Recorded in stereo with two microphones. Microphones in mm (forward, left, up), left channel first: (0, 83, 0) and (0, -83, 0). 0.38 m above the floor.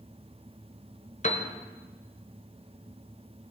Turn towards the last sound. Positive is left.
turn(degrees=45)  # may be behind; listen again after turning